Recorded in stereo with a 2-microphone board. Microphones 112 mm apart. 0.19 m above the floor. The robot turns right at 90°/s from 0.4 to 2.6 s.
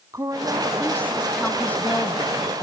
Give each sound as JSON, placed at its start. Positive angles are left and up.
{"t": 0.1, "sound": "a woman speaking", "side_deg": -30, "distance_m": 1.3}